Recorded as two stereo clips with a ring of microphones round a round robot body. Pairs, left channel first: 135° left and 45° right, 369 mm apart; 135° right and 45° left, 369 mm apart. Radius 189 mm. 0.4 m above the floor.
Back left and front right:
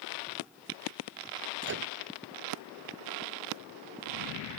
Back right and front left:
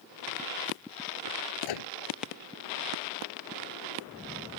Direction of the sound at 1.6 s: 105° right.